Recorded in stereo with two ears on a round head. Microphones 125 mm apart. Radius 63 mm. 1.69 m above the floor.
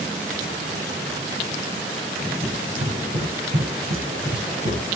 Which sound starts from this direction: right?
Running footsteps, at 2.4 s.